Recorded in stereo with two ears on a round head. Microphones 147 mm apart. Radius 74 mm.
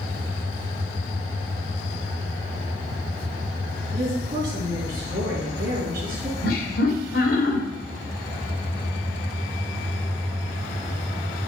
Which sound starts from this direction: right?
A woman speaking, at 3.9 s.